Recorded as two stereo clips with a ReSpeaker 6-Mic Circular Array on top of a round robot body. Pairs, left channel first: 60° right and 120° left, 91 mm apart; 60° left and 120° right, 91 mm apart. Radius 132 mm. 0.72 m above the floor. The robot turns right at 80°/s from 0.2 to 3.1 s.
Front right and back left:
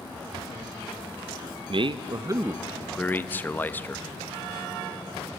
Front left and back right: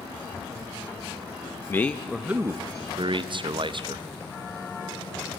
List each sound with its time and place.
1.7 s a man speaking: 120° left, 0.7 m; by 4.1 s 125° right, 0.7 m